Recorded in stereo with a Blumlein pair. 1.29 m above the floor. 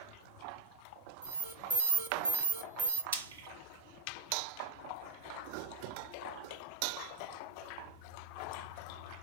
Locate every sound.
1.2 s an alarm: 70° right, 0.7 m
3.1 s frying: 70° right, 1.1 m